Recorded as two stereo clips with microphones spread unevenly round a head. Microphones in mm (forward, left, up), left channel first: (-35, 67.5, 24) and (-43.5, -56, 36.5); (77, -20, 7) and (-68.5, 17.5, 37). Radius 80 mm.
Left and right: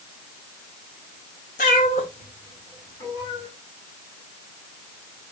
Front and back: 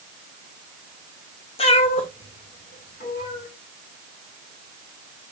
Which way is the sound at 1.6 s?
45° left.